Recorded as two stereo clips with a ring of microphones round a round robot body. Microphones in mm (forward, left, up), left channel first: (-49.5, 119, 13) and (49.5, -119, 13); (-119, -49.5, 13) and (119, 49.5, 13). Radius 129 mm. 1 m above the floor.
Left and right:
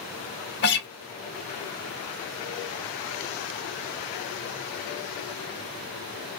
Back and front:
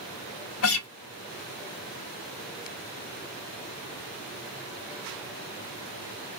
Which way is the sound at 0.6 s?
165° left.